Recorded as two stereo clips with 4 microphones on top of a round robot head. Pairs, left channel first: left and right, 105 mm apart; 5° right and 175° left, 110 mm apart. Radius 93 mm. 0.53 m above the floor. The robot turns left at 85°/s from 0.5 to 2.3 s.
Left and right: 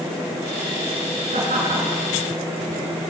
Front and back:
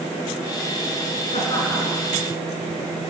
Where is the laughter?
50° right, 7 m; by 2.0 s 115° right, 7 m.